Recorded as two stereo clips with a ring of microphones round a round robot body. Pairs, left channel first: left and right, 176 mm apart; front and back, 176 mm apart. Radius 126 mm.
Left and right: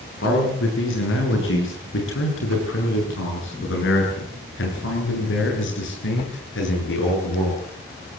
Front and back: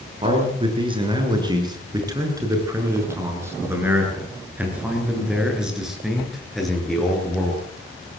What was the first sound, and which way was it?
A man speaking, 120° left.